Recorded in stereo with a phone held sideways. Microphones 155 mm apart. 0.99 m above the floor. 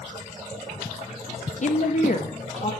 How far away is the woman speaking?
About 0.6 m.